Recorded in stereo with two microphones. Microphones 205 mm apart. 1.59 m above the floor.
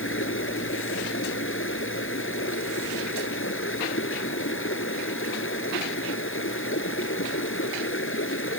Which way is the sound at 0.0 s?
85° left.